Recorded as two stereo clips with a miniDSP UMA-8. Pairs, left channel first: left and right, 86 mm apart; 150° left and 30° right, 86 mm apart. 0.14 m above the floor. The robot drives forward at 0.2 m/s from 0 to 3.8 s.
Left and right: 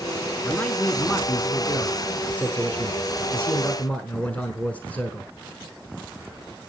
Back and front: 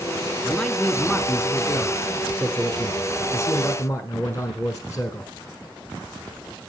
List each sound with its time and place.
0.4 s a man speaking: 75° left, 1.0 m; by 5.3 s 150° left, 1.2 m